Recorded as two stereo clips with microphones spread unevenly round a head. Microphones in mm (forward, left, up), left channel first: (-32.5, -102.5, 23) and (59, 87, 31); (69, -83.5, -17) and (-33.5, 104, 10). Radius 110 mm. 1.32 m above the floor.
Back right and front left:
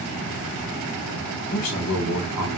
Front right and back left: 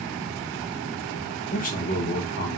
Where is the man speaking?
120° right, 1.0 m.